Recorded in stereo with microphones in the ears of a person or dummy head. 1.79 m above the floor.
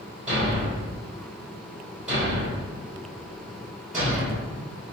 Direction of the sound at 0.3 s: 5° right (ahead or behind).